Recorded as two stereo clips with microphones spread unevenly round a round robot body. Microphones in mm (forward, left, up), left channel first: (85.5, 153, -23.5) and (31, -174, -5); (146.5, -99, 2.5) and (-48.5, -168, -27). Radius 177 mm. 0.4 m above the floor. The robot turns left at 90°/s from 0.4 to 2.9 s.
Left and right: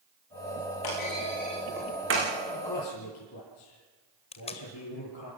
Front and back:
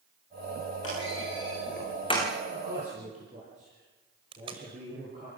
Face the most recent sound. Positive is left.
turn(degrees=145)